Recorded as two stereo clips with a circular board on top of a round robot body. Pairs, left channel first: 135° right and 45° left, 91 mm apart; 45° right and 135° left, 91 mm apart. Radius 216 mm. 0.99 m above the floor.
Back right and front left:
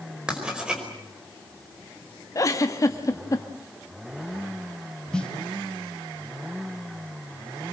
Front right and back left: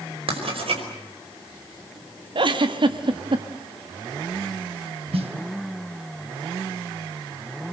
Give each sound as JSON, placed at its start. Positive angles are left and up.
{"t": 0.3, "sound": "writing", "azimuth_deg": 125, "distance_m": 5.0}
{"t": 2.4, "sound": "a giggle", "azimuth_deg": 170, "distance_m": 1.4}
{"t": 5.1, "sound": "a snare drum", "azimuth_deg": 145, "distance_m": 2.0}